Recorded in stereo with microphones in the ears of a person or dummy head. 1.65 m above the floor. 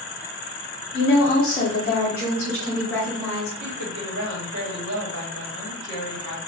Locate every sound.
0.9 s a woman speaking: 50° left (ahead or behind), 0.7 m; by 3.5 s centre (ahead or behind), 2 m
3.6 s a woman speaking: 70° right (ahead or behind), 1.2 m